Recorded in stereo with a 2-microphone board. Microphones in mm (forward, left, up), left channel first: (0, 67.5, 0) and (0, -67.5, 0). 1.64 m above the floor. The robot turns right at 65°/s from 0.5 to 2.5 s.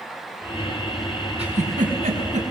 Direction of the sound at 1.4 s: 50° right (ahead or behind).